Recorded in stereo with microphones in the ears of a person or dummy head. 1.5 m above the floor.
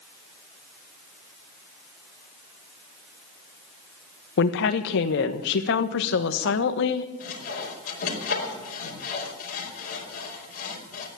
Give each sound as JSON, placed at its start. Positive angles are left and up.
{"t": 4.4, "sound": "a woman speaking", "side_deg": 65, "distance_m": 1.3}
{"t": 7.2, "sound": "sawing", "side_deg": 60, "distance_m": 5.0}